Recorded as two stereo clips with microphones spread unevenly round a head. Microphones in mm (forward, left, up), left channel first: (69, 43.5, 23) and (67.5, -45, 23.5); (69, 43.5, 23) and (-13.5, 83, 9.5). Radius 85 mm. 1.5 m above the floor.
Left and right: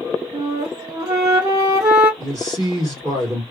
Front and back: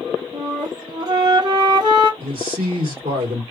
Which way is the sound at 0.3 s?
150° right.